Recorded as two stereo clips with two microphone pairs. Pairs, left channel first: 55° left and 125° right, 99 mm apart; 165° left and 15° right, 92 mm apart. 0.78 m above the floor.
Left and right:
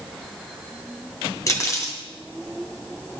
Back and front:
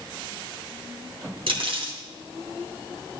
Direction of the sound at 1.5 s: Straight ahead.